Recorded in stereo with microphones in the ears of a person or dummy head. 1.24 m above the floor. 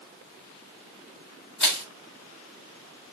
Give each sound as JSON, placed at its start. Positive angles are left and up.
{"t": 1.6, "sound": "crushing", "side_deg": 5, "distance_m": 1.6}